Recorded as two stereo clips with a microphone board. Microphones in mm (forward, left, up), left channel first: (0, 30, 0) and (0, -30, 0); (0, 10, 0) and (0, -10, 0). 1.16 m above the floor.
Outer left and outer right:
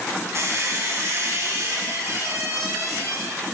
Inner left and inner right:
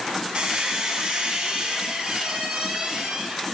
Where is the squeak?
50° right (ahead or behind), 0.9 m.